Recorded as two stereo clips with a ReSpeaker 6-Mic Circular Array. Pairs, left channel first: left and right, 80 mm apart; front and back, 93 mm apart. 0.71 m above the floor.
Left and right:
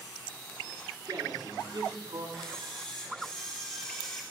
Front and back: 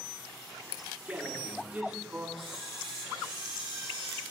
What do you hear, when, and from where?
1.1 s a man speaking: 105° right, 8 m
2.4 s a camera shutter: 170° left, 8.5 m